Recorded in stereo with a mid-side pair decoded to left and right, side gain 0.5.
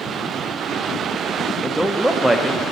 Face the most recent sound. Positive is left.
turn(degrees=-10)